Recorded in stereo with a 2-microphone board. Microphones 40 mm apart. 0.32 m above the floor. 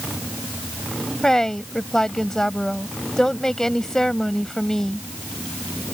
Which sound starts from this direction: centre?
A woman speaking, at 1.2 s.